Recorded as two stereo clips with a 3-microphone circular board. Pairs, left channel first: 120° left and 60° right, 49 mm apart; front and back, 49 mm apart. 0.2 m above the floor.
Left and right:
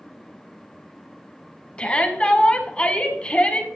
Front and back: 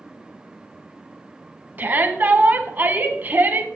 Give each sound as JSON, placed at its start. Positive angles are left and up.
{"t": 1.8, "sound": "a shout", "azimuth_deg": 175, "distance_m": 1.6}